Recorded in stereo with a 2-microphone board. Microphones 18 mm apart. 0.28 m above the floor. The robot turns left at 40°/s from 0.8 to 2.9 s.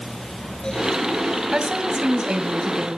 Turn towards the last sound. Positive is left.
turn(degrees=-130)